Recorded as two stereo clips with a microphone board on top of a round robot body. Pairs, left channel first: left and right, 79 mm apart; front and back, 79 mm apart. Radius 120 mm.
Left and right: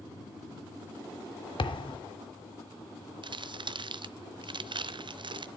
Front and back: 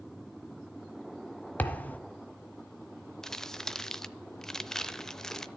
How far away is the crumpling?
About 0.7 m.